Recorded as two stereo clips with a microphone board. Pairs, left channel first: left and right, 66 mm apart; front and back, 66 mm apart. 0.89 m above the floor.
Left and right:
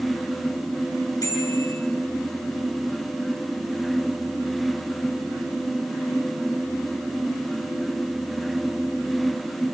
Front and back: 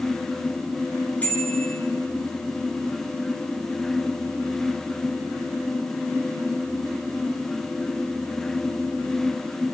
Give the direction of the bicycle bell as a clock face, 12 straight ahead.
10 o'clock.